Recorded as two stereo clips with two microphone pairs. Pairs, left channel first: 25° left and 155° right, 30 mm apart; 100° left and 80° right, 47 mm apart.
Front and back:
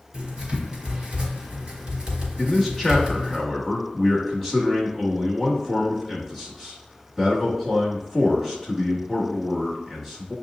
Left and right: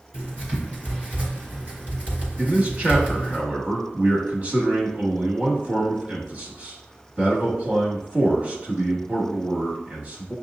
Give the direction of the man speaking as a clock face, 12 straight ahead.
2 o'clock.